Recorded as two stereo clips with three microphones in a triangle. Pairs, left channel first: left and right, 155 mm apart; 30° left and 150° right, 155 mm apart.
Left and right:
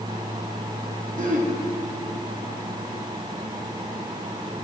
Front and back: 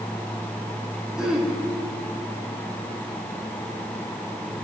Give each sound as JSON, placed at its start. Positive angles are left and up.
{"t": 1.2, "sound": "throat clearing", "azimuth_deg": -65, "distance_m": 2.0}